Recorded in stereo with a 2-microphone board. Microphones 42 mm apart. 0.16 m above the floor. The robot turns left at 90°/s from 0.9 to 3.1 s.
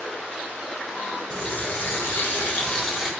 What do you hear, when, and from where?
1.3 s a running tap: 150° left, 1.4 m; by 3.1 s 10° right, 1.4 m